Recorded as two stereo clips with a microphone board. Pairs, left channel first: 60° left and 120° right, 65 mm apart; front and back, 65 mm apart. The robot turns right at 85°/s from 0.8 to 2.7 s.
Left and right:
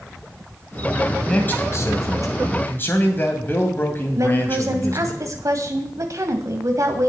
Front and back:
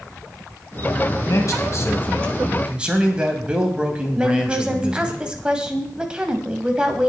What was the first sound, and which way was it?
A man speaking, 10° right.